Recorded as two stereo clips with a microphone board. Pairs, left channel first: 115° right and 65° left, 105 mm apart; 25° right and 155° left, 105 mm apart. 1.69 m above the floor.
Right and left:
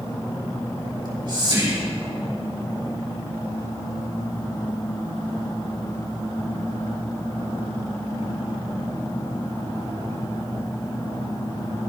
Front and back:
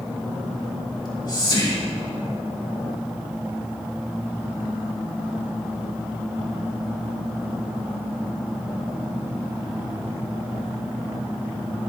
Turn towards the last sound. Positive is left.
turn(degrees=25)